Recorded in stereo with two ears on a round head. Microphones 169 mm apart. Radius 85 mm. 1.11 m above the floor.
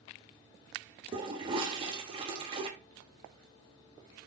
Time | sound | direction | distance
1.1 | a toilet flushing | 25° right (ahead or behind) | 0.6 m